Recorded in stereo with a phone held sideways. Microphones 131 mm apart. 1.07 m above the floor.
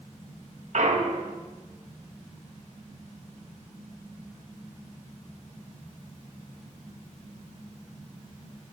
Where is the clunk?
65° right (ahead or behind), 1.1 m.